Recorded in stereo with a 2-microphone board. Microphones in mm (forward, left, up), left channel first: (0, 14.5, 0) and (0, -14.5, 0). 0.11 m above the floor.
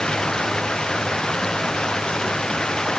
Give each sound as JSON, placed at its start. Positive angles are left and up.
{"t": 0.0, "sound": "running water", "side_deg": 25}